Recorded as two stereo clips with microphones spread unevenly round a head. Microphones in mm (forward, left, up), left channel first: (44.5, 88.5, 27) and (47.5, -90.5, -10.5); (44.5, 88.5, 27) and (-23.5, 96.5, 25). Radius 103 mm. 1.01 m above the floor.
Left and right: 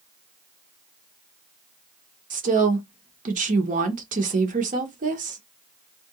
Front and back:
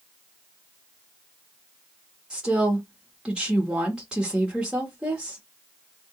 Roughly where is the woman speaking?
Right.